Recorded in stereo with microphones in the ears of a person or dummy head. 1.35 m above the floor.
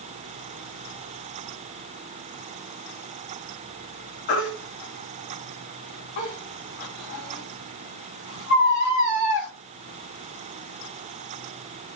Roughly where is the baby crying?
Left.